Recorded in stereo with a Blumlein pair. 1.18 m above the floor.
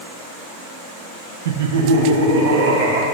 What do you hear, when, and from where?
1.4 s laughter: 60° right, 0.6 m; by 3.0 s 55° right, 2 m